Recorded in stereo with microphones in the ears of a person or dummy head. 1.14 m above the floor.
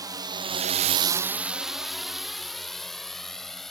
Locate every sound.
0.0 s a drone: 10° right (ahead or behind); by 3.7 s 5° right (ahead or behind)